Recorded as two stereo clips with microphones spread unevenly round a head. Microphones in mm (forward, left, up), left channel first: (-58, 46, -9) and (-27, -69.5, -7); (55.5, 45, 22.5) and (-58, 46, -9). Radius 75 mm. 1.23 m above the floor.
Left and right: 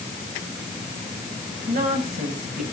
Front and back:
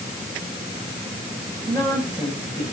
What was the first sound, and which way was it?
A woman speaking, 75° right.